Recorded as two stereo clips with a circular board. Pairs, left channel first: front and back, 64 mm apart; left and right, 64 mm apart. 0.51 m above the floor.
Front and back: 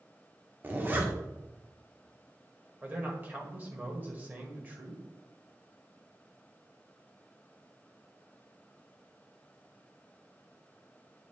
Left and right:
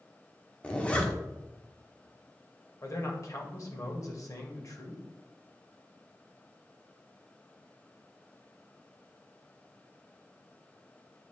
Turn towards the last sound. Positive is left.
turn(degrees=120)